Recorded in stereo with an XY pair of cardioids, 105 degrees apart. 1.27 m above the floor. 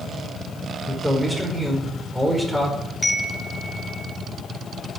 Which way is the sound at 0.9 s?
5° right.